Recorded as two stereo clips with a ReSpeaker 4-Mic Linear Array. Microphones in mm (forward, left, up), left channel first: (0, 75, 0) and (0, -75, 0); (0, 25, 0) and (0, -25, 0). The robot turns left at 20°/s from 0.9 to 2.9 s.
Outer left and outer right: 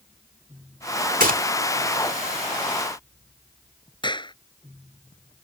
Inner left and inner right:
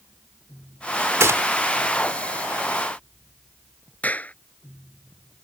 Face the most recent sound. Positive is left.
turn(degrees=35)  # may be behind; listen again after turning